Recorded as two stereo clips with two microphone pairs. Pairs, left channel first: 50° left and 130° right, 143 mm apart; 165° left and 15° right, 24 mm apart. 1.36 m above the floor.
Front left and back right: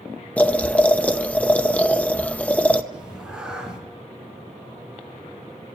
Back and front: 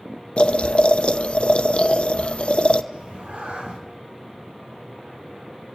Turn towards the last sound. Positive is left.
turn(degrees=-45)